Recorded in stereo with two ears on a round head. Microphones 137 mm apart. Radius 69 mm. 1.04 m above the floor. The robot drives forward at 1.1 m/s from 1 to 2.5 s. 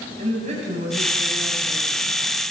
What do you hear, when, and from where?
0.2 s a woman speaking: 45° right (ahead or behind), 8.5 m; by 2.4 s 50° right (ahead or behind), 7.5 m